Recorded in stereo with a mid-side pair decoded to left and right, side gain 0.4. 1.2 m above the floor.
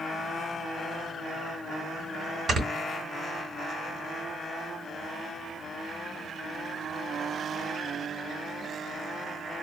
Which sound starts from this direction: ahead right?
Snoring, at 2.5 s.